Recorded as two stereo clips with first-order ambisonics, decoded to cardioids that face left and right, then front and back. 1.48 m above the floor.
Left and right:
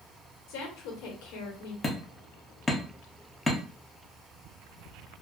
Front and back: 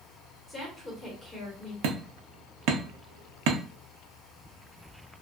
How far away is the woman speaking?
About 1.1 m.